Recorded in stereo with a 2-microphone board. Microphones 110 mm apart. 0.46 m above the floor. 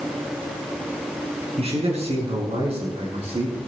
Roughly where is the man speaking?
Right.